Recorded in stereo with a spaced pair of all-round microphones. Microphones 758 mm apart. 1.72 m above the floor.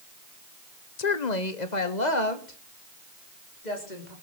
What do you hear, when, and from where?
1.0 s a woman speaking: 60° left (ahead or behind), 1.0 m; by 4.1 s 70° left (ahead or behind), 4.5 m